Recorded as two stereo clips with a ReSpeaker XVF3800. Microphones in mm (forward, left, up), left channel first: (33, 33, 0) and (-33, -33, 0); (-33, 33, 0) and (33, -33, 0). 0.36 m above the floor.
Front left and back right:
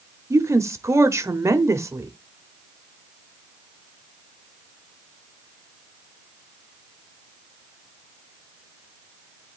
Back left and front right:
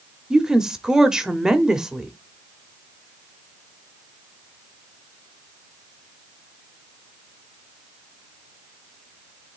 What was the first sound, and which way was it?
A woman speaking, 125° right.